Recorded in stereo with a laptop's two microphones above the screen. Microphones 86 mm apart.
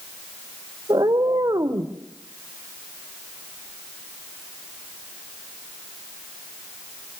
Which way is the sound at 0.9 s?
50° right (ahead or behind).